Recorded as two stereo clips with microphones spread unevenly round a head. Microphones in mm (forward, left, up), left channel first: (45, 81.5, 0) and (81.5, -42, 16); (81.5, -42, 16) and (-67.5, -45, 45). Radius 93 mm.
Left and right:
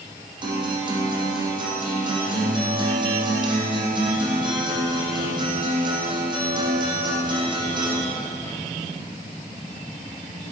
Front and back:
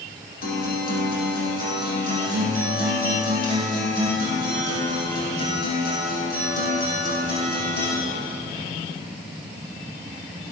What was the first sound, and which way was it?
A guitar, 25° right.